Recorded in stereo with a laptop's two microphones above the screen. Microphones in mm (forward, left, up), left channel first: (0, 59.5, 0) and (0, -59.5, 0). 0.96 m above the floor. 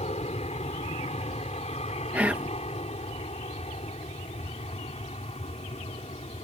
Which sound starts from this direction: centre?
Whispering, at 2.1 s.